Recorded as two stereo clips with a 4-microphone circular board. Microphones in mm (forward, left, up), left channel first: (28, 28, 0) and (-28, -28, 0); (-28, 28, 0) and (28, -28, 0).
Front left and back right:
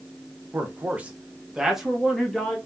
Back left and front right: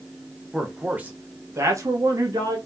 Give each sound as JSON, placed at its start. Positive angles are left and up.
{"t": 0.5, "sound": "a man speaking", "azimuth_deg": -120, "distance_m": 0.9}